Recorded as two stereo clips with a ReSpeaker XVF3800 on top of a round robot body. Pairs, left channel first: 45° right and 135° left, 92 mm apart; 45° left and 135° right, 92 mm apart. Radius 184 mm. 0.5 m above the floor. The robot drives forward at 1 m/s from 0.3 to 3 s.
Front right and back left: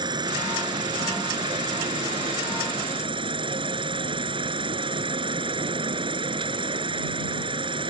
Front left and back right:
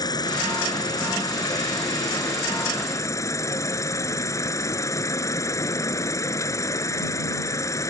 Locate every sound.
0.0 s an insect: 95° left; by 7.9 s 105° left